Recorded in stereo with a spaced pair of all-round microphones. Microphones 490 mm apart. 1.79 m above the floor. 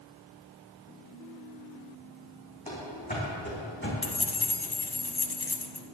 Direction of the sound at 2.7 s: 15° left (ahead or behind).